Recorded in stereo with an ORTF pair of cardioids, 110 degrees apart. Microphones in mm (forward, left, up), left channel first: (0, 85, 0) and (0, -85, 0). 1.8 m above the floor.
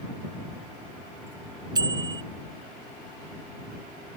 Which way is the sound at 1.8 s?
25° right.